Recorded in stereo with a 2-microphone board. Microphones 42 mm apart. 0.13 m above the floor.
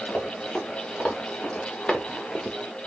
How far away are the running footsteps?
About 2.5 m.